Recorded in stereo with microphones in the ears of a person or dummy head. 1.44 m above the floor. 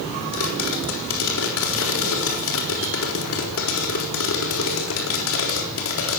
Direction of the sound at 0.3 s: 85° left.